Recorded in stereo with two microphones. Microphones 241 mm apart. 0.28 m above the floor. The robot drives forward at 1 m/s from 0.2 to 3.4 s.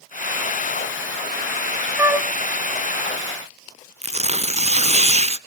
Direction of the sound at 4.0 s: 25° right (ahead or behind).